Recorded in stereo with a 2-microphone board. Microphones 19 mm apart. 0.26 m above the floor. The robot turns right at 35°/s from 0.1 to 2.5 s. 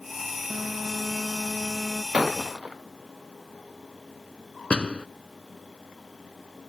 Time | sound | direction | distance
0.5 | a phone buzzing | 75° right | ?
2.1 | breaking glass | 70° right (ahead or behind) | ?
4.7 | a door slam | 70° left (ahead or behind) | ?